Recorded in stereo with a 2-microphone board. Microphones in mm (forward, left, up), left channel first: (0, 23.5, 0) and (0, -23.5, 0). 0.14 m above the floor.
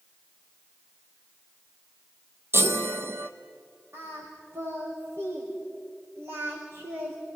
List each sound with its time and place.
2.5 s a chime: 55° right (ahead or behind), 0.9 m
3.9 s singing: 80° right, 5.5 m